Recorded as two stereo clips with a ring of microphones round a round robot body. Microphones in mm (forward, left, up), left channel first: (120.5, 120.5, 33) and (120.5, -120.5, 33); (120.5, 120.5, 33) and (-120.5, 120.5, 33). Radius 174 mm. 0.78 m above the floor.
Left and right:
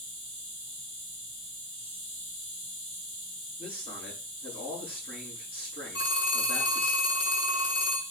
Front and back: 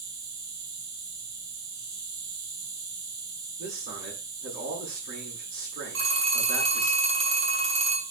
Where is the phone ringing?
150° left, 5.5 m.